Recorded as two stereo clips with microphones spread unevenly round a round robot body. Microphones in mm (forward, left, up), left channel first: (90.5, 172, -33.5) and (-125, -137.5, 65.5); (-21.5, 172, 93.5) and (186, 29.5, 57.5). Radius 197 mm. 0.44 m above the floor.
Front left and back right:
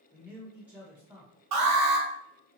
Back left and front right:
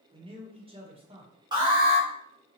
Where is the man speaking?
15° right, 1.2 m.